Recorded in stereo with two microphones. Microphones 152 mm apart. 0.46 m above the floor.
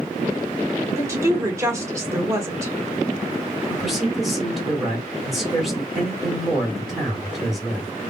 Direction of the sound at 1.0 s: 20° right (ahead or behind).